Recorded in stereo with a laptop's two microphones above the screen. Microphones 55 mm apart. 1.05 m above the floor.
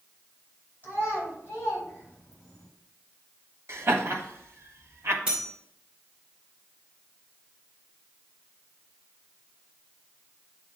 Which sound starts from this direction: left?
A child speaking, at 0.8 s.